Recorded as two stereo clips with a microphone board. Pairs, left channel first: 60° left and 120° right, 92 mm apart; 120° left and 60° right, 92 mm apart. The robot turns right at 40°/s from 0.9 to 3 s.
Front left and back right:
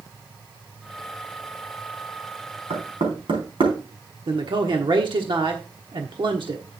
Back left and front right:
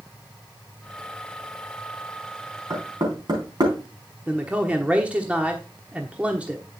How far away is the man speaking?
About 1.1 m.